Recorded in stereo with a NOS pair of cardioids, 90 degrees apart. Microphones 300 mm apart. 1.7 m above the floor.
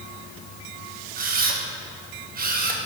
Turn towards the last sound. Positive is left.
turn(degrees=-30)